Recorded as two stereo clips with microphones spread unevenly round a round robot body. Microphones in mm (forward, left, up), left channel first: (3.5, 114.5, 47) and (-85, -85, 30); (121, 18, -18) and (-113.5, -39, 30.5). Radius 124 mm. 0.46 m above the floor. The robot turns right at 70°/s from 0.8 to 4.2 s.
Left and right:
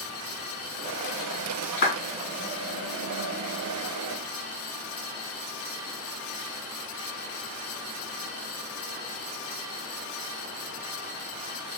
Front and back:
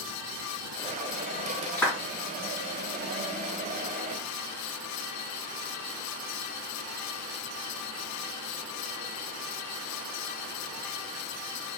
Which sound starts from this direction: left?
A clap, at 1.8 s.